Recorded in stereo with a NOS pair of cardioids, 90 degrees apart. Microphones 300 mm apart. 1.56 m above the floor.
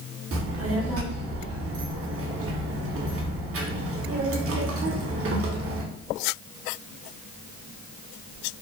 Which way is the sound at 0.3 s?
50° right.